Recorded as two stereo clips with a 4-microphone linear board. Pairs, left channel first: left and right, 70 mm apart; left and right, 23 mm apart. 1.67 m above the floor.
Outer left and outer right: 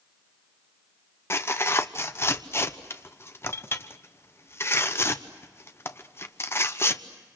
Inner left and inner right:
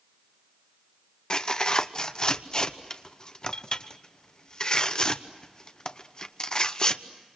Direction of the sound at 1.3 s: 35° left (ahead or behind).